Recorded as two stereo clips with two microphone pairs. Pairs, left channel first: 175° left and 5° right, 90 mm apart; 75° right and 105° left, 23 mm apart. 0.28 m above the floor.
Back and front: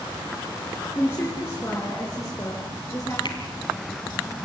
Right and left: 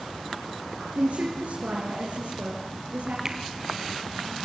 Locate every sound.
0.9 s a woman speaking: 110° left, 3.5 m; by 3.1 s 120° left, 5 m
3.2 s a finger snap: 170° left, 2.5 m